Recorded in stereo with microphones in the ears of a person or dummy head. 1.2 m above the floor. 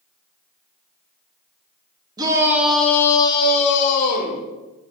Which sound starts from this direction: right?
A shout, at 2.2 s.